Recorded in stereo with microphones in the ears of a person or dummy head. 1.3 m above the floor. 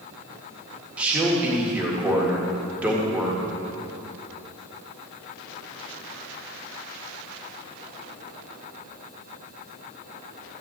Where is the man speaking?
10° right (ahead or behind), 1.8 m.